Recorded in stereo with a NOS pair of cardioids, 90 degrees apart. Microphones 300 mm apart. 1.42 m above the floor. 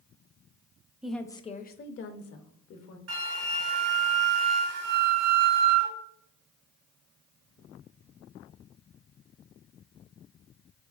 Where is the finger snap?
No finger snap in this recording.